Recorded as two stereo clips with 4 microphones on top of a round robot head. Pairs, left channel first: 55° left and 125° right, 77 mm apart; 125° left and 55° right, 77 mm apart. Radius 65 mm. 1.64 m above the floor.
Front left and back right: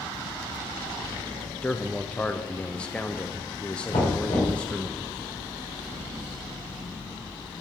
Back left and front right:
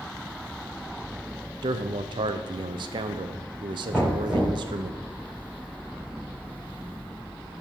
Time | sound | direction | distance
1.6 | a man speaking | 25° right | 0.7 m
3.9 | knocking | 30° left | 3.5 m